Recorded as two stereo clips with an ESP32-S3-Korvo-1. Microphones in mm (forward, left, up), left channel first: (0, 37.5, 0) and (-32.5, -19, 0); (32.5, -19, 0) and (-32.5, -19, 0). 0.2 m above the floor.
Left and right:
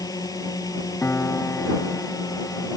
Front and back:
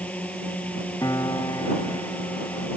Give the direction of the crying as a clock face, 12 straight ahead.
I don't hear crying.